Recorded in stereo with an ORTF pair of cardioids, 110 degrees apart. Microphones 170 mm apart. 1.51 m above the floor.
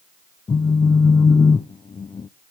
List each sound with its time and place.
0.5 s a phone buzzing: 25° left, 0.8 m